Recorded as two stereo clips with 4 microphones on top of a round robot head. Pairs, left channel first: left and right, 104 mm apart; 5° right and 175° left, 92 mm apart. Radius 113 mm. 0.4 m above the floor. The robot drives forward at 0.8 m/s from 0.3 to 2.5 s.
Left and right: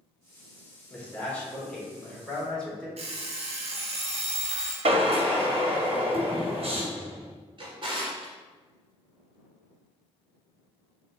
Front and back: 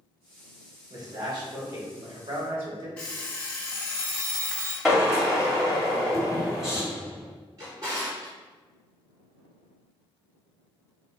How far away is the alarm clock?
About 0.9 m.